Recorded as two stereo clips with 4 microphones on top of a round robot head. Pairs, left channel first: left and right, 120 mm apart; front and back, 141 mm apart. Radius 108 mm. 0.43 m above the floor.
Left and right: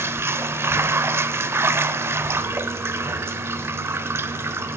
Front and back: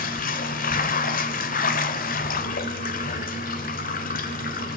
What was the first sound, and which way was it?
Running water, 20° right.